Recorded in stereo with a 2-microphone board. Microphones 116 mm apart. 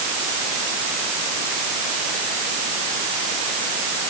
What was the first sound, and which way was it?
Only background noise.